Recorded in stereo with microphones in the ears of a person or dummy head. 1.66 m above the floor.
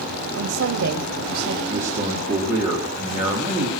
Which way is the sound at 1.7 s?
15° right (ahead or behind).